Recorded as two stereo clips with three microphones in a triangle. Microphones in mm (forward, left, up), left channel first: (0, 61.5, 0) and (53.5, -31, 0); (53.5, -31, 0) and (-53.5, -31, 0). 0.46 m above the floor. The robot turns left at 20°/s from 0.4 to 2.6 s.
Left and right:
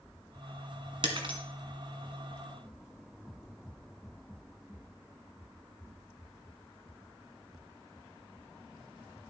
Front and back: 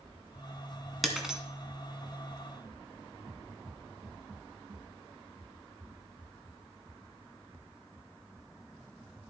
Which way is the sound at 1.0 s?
90° right.